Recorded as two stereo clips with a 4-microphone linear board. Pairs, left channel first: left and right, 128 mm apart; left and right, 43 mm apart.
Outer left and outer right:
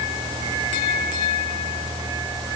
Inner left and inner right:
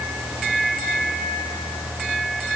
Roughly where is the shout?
I don't hear a shout.